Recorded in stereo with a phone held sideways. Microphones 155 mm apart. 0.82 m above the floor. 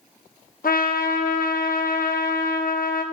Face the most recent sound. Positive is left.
turn(degrees=65)  # may be behind; listen again after turning